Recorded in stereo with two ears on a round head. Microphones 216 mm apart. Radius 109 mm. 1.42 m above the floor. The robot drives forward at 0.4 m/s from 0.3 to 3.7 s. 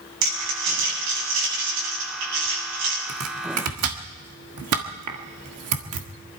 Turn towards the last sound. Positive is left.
turn(degrees=-65)  # may be behind; listen again after turning